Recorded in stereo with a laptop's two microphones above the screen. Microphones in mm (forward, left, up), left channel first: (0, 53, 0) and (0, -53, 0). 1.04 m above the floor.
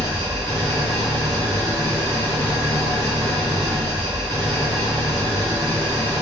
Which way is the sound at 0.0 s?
40° right (ahead or behind).